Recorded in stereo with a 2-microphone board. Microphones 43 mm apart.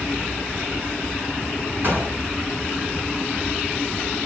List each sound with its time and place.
1.8 s a gunshot: 55° right (ahead or behind), 7 m